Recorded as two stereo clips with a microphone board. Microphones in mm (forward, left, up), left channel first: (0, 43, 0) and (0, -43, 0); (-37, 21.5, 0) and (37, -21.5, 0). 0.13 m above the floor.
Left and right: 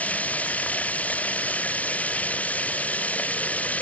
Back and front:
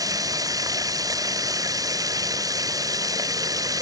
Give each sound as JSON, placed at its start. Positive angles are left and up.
{"t": 0.0, "sound": "running water", "azimuth_deg": 15}